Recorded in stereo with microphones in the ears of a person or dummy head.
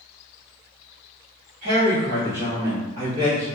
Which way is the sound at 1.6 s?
45° right (ahead or behind).